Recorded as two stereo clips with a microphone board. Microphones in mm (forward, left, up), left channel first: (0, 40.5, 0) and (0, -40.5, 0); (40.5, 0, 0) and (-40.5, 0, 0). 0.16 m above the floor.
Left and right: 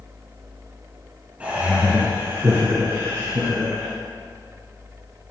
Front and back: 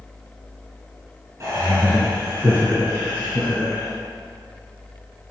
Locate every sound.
1.4 s laughter: 155° right, 1.6 m; by 3.9 s 115° right, 2 m